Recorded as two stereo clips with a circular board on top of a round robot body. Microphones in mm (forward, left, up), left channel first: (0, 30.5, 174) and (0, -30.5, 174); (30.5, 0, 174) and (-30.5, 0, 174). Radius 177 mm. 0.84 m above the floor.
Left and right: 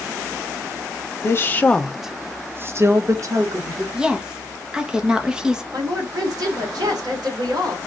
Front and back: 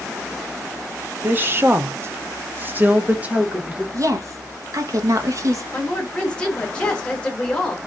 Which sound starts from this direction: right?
A woman speaking, at 5.7 s.